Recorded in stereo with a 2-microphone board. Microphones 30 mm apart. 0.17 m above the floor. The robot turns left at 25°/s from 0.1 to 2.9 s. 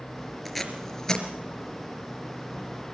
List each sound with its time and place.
0.5 s tape being pulled: centre (ahead or behind), 3.5 m; by 1.3 s 20° left (ahead or behind), 3.5 m